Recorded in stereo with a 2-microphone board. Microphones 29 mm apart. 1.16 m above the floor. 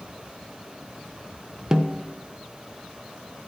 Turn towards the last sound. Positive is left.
turn(degrees=-25)  # may be behind; listen again after turning